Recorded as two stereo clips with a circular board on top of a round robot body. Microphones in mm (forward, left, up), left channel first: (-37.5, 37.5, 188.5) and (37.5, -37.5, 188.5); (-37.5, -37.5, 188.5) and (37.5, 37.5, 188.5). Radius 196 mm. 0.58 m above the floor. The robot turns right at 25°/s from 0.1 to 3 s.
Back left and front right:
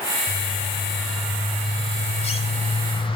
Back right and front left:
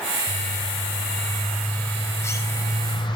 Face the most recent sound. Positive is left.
turn(degrees=175)